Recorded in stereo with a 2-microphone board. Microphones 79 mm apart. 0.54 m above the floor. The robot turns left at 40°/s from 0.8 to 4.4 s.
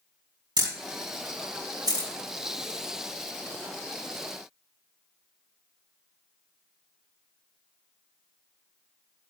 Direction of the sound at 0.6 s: 85° right.